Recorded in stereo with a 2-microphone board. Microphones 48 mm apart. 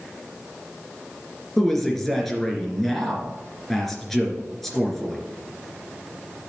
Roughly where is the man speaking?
Centre.